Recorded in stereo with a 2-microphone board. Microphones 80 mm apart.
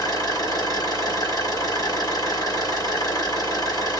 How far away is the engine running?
About 1.8 m.